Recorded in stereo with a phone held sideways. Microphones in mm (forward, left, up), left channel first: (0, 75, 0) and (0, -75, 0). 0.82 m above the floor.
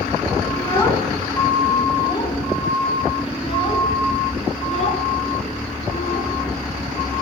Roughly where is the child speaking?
Centre.